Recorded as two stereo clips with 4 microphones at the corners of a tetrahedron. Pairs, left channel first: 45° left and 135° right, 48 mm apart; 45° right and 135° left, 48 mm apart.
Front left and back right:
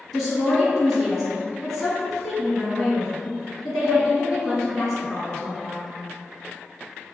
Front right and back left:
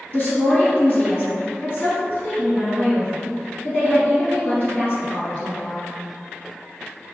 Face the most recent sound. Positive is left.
turn(degrees=-45)